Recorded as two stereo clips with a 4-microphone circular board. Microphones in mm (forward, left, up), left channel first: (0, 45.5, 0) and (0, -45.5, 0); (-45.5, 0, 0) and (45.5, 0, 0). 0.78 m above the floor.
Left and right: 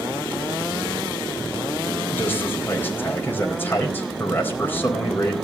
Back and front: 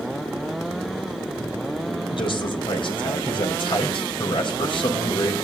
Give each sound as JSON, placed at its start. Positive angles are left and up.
{"t": 2.1, "sound": "a man speaking", "azimuth_deg": 155, "distance_m": 4.0}